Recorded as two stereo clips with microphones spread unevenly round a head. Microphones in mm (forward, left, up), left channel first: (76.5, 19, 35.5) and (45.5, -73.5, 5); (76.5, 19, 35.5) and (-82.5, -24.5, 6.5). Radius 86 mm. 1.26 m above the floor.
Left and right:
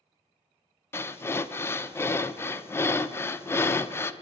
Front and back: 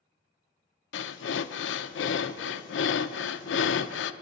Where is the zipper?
I don't hear a zipper.